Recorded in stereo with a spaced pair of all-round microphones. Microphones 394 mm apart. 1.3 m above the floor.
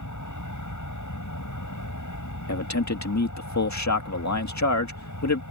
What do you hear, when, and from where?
0.0 s an aircraft: 45° left (ahead or behind)
2.5 s a man speaking: 45° left (ahead or behind)